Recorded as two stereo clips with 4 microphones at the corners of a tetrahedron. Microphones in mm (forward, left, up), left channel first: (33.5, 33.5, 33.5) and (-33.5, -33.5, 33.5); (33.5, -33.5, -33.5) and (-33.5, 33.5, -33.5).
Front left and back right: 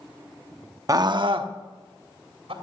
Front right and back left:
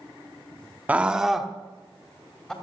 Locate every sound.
0.9 s a scream: 160° right, 0.8 m; by 2.5 s 125° right, 2.5 m